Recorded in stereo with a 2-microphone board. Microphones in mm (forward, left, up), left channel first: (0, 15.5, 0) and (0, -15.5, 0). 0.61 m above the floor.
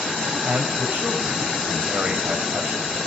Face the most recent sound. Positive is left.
turn(degrees=-75)  # may be behind; listen again after turning